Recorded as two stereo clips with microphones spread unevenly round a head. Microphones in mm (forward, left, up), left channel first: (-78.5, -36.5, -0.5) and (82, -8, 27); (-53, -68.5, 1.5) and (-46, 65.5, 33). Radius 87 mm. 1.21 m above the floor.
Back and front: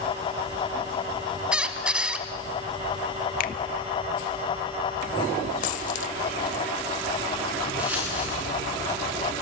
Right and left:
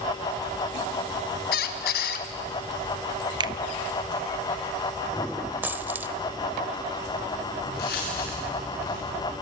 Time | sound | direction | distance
1.5 | a squeak | 65° right | 1.6 m
3.4 | a finger snap | 145° left | 1.0 m
5.6 | a dropped coin | 145° left | 1.3 m
7.6 | footsteps | 70° right | 8 m